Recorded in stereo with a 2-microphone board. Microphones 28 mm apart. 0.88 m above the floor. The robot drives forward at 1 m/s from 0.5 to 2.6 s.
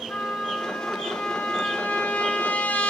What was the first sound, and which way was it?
A trumpet, 70° left (ahead or behind).